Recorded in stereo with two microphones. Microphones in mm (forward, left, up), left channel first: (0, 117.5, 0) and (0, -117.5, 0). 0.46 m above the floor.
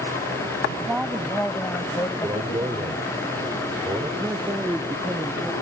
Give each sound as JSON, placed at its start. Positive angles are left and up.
{"t": 0.8, "sound": "a woman speaking", "side_deg": -5}
{"t": 2.2, "sound": "a man speaking", "side_deg": -20}
{"t": 4.2, "sound": "a man speaking", "side_deg": -10}